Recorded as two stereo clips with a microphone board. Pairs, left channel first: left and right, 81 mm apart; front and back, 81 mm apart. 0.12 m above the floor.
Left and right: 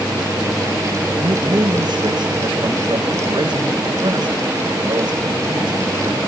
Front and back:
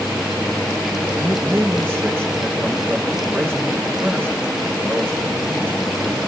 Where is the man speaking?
115° right, 6.5 m.